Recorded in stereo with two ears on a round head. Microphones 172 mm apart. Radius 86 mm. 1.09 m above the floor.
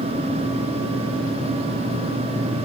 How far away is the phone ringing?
No phone ringing in this recording.